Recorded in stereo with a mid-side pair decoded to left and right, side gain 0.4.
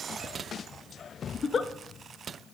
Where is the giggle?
40° left, 0.5 m.